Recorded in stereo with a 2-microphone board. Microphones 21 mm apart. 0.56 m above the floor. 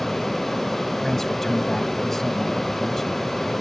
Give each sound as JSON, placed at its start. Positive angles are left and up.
{"t": 1.0, "sound": "a man speaking", "side_deg": 15}